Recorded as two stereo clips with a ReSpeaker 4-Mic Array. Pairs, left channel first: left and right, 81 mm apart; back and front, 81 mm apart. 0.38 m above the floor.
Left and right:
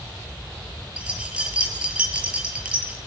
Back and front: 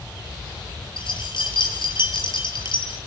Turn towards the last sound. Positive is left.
turn(degrees=-165)